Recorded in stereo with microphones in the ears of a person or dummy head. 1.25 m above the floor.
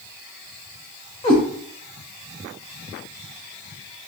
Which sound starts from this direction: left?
A cat meowing, at 1.2 s.